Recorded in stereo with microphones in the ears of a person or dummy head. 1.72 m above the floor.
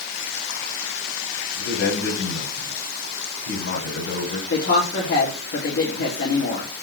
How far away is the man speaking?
About 6 m.